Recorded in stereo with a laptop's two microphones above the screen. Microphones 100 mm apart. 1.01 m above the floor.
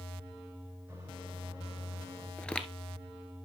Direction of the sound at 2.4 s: 10° left (ahead or behind).